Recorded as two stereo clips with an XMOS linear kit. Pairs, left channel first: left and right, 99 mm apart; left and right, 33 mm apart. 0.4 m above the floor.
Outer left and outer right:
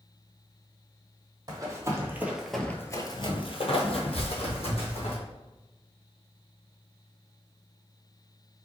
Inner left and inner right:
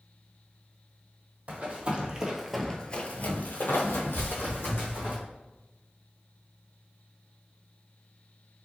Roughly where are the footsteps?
Left.